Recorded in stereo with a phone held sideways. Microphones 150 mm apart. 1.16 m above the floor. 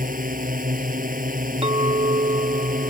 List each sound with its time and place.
0.0 s a drone: 65° right (ahead or behind)
1.6 s a clink: 40° right (ahead or behind)